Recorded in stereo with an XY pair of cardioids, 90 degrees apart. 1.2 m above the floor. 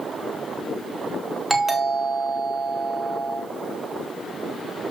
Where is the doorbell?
20° right, 2.5 m.